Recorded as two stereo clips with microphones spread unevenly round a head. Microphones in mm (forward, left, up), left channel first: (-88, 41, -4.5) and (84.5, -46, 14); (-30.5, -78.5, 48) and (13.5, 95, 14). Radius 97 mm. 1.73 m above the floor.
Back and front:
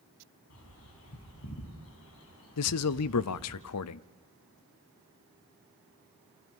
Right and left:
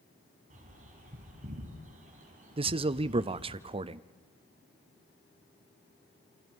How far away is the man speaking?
About 0.6 m.